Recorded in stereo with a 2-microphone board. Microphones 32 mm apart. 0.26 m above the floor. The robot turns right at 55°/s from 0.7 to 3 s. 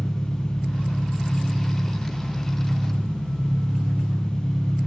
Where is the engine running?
165° left, 1.6 m; by 4.9 s 70° right, 1.6 m.